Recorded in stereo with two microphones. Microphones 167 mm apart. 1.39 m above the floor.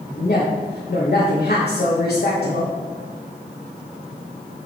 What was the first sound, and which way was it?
A woman speaking, 65° left (ahead or behind).